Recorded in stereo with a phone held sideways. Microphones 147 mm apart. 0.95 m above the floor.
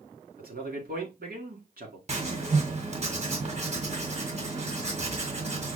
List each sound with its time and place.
0.4 s a man speaking: 75° right (ahead or behind), 2 m
2.1 s writing: 45° right (ahead or behind), 1.7 m